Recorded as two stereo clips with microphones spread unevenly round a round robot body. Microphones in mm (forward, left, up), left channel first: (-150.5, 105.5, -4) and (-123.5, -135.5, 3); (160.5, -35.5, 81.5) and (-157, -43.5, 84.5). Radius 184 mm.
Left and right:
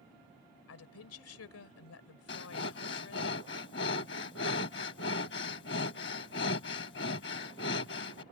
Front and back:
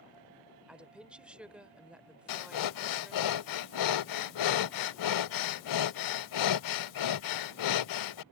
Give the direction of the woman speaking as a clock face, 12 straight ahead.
9 o'clock.